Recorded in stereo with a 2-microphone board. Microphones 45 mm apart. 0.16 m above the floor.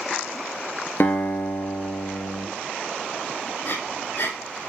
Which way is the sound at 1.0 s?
55° left (ahead or behind).